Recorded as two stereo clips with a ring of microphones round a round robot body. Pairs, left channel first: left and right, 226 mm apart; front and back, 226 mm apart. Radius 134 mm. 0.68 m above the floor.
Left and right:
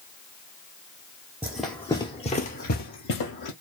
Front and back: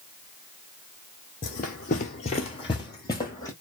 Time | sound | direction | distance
1.4 | running footsteps | 15° right | 0.7 m